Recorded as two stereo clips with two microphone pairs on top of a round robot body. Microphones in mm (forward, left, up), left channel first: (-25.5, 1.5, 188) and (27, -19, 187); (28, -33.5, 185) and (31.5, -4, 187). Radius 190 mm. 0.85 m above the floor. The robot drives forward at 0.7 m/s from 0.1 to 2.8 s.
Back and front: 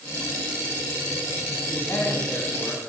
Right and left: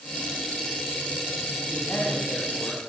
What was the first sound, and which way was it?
A man speaking, 145° right.